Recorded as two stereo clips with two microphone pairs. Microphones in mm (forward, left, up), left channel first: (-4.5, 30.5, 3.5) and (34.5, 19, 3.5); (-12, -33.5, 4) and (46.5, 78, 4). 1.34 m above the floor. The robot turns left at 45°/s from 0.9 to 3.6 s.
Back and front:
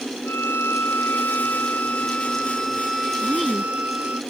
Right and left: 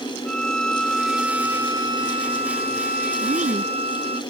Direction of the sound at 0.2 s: 155° left.